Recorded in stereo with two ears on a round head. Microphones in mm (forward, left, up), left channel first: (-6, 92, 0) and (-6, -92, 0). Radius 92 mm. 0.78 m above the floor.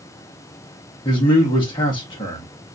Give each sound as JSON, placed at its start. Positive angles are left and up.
{"t": 1.1, "sound": "a man speaking", "side_deg": 25, "distance_m": 0.9}